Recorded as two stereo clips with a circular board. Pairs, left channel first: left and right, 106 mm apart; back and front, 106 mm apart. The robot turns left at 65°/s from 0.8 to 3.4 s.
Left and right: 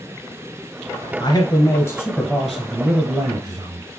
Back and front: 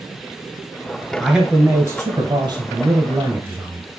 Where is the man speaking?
90° left, 1.3 m; by 3.8 s 55° right, 1.3 m.